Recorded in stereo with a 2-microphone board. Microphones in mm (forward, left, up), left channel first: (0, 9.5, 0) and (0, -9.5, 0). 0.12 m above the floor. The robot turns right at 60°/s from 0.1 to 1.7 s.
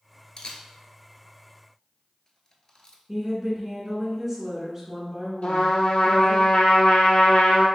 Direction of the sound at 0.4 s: 35° left (ahead or behind).